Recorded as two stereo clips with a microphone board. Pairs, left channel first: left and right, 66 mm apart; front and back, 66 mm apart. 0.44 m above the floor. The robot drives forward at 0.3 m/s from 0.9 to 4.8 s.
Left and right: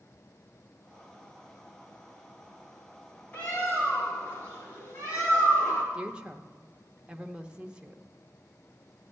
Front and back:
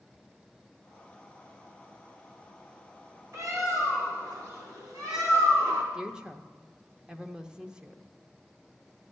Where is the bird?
150° left, 4 m; by 5.8 s 155° left, 4.5 m.